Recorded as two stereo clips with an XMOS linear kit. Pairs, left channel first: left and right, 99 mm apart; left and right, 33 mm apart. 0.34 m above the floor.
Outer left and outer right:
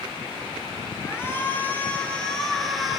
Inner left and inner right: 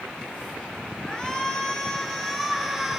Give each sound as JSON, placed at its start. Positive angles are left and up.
{"t": 1.0, "sound": "a shout", "side_deg": 25, "distance_m": 4.5}